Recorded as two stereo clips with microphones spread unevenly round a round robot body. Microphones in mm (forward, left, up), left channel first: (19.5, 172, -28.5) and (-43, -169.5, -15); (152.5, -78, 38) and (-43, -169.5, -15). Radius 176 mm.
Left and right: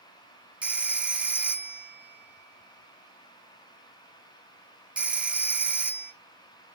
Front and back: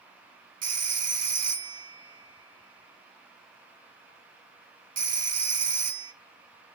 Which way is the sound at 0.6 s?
175° left.